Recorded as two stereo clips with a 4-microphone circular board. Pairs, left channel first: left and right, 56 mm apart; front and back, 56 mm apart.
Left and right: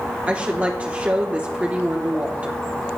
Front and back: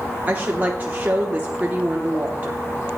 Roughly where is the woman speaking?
Behind right.